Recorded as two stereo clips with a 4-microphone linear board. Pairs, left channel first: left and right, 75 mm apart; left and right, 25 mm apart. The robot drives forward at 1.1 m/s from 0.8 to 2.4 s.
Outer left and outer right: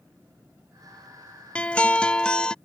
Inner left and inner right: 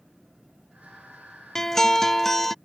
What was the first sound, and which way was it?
A guitar, 15° left (ahead or behind).